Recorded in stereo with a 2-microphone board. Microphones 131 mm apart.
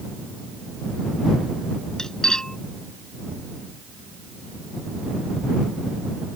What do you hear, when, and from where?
2.0 s cutlery clinking: 5° left (ahead or behind)